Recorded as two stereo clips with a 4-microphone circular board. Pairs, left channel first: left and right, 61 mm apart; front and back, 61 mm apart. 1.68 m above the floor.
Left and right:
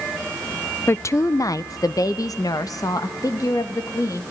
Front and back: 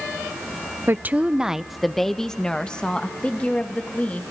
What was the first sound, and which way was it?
A woman speaking, 135° left.